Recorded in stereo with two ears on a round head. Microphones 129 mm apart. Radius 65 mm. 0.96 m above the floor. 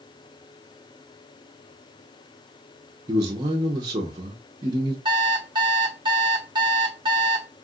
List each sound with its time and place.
3.1 s a man speaking: 25° right (ahead or behind), 0.7 m
5.0 s an alarm clock: 35° right (ahead or behind), 0.9 m